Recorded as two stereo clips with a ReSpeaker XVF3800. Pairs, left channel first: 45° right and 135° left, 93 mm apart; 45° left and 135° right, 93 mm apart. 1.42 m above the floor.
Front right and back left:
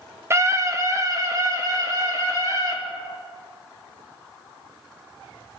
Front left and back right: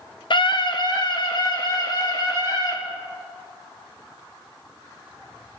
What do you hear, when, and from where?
0.3 s a scream: 75° left, 1.0 m; by 2.8 s 85° left, 4.5 m